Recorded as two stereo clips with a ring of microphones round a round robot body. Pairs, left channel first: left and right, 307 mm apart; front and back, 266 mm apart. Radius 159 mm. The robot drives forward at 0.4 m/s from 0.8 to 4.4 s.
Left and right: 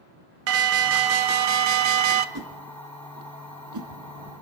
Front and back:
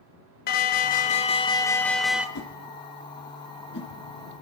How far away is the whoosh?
About 2.5 m.